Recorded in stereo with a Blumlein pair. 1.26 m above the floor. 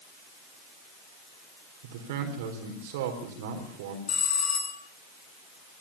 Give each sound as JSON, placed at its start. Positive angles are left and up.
{"t": 1.8, "sound": "a man speaking", "azimuth_deg": -50, "distance_m": 4.0}
{"t": 4.1, "sound": "a bell", "azimuth_deg": 25, "distance_m": 8.0}